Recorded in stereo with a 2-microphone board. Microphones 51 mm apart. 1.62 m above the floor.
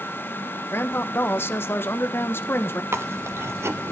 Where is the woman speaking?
50° left (ahead or behind), 1.0 m.